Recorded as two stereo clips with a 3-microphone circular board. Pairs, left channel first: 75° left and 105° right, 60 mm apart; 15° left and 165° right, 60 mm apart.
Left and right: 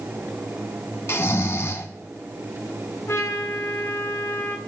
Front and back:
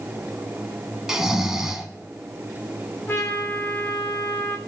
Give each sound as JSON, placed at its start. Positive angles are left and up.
{"t": 1.1, "sound": "snoring", "azimuth_deg": 115, "distance_m": 0.8}
{"t": 3.1, "sound": "a trumpet", "azimuth_deg": 50, "distance_m": 1.4}